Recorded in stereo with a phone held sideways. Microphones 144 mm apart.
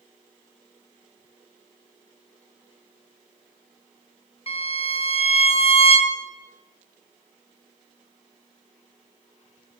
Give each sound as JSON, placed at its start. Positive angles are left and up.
{"t": 4.5, "sound": "a violin", "side_deg": 45, "distance_m": 0.7}